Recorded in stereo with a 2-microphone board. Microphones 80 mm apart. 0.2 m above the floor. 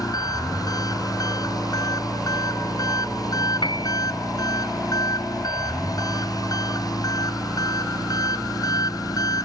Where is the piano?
80° left.